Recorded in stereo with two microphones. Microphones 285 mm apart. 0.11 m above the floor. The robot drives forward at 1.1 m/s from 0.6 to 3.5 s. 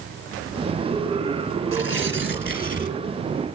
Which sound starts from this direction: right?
Tearing paper, at 1.7 s.